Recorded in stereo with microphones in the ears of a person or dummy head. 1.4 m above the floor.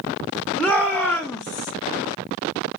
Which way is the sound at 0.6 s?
10° right (ahead or behind).